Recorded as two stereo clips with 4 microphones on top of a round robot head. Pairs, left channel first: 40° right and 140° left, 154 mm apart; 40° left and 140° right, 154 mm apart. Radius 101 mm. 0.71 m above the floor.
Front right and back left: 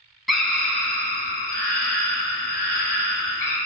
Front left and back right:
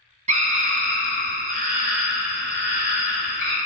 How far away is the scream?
About 1.0 m.